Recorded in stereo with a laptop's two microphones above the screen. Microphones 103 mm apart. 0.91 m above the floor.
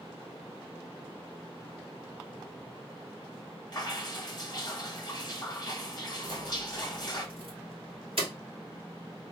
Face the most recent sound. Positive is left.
turn(degrees=-60)  # may be behind; listen again after turning